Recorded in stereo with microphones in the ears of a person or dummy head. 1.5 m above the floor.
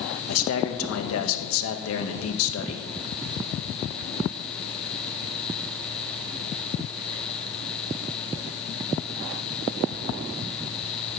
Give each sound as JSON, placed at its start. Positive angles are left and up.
{"t": 0.3, "sound": "a man speaking", "side_deg": 85, "distance_m": 1.7}